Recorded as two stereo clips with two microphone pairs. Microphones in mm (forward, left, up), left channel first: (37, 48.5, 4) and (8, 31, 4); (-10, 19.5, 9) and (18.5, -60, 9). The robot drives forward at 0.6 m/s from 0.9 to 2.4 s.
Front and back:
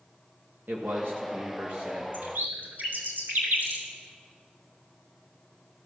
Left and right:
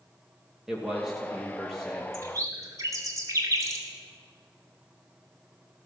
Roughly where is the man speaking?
Behind right.